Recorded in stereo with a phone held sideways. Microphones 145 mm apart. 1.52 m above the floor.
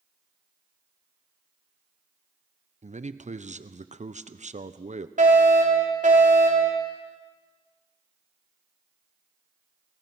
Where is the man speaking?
55° right (ahead or behind), 1.0 m.